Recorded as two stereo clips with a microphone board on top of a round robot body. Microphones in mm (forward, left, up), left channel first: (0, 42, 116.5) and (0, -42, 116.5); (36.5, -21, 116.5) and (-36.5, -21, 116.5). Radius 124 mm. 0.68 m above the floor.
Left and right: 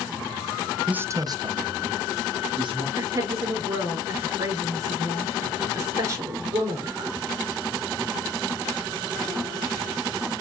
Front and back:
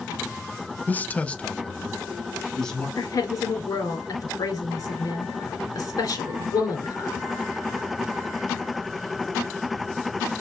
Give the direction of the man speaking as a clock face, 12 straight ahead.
1 o'clock.